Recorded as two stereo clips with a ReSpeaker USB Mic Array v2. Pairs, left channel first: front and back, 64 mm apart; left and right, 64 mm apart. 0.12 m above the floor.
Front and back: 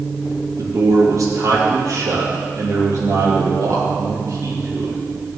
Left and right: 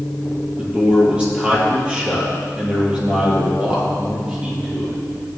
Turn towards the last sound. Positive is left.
turn(degrees=-160)